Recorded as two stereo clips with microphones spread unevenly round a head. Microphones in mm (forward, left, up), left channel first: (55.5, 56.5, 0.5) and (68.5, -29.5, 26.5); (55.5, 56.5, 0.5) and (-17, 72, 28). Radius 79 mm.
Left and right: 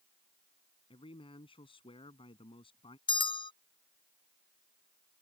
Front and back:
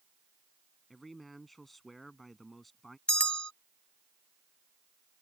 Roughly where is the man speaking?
Left.